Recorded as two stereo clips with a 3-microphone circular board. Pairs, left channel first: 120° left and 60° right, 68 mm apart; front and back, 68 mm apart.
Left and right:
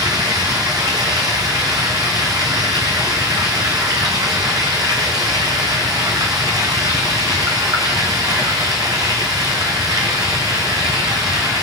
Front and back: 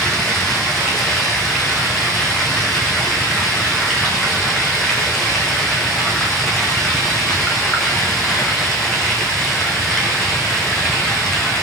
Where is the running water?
80° right, 3.5 m.